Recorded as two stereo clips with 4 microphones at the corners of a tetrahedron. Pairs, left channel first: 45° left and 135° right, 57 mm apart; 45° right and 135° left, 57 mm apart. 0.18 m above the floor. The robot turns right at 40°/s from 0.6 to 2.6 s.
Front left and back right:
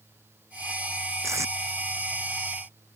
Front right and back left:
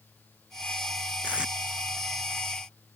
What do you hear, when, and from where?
1.2 s tape being pulled: 165° right; by 1.5 s 150° right